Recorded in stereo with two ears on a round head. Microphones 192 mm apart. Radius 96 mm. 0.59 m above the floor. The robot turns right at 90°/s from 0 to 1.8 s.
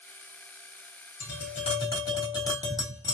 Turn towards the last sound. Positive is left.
turn(degrees=160)